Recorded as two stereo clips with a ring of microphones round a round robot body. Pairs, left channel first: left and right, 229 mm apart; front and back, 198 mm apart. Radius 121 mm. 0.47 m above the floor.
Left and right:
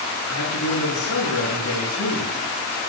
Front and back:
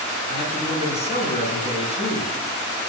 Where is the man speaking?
60° left, 7.5 m.